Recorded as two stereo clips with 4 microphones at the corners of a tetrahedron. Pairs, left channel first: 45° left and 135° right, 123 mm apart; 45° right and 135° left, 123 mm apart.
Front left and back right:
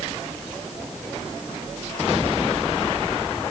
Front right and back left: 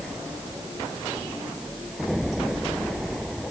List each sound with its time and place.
Only background noise.